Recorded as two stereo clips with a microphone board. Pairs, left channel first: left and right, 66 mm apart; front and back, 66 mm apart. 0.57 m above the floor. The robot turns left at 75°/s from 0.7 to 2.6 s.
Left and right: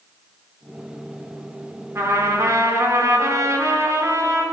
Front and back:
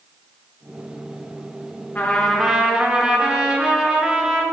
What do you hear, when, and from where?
1.9 s a trumpet: 55° right, 1.6 m; by 4.4 s 105° right, 1.6 m